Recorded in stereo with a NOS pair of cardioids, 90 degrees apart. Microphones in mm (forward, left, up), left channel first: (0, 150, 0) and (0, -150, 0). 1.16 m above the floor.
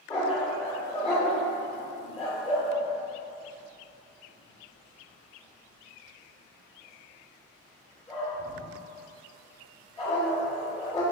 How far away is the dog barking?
About 1.6 m.